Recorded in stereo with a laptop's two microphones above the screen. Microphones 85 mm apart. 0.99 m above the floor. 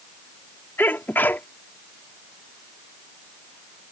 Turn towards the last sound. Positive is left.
turn(degrees=25)  # may be behind; listen again after turning